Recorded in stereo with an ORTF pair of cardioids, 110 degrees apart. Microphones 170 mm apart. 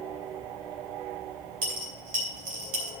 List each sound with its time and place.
1.6 s a dropped coin: 55° right, 4.5 m